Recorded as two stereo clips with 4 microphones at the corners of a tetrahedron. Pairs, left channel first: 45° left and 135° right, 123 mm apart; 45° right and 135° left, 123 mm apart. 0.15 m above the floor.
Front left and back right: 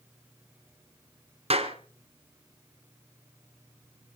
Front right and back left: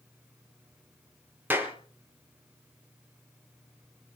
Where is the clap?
155° right, 2.5 m.